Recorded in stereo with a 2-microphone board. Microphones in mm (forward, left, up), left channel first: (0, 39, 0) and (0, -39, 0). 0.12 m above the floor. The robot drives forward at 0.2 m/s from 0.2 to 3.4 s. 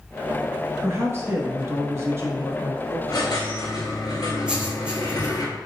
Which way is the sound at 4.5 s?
15° right (ahead or behind).